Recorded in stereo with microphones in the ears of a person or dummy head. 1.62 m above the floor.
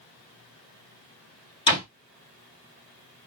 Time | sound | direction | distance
1.7 | a door slam | 25° left (ahead or behind) | 3 m